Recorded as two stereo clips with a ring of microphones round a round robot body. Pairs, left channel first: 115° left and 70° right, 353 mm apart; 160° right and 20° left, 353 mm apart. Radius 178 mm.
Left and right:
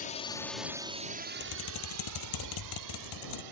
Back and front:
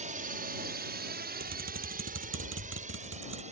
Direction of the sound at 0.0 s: 70° left.